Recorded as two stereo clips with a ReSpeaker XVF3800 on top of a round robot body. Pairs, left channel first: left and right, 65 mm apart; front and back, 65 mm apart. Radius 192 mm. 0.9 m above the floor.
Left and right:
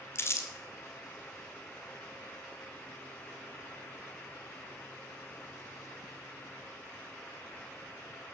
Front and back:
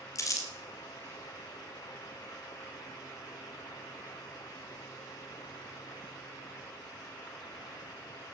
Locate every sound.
0.1 s crumpling: 40° left, 2 m